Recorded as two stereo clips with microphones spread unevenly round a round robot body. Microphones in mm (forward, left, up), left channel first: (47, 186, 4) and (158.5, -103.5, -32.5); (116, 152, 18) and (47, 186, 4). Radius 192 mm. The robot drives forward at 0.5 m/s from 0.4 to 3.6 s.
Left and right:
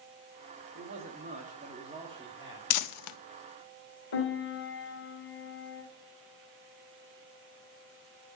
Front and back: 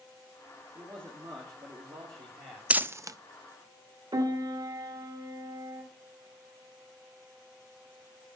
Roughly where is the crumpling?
Left.